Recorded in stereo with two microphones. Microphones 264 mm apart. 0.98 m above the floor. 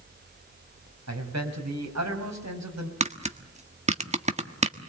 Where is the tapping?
25° right (ahead or behind), 1.4 m.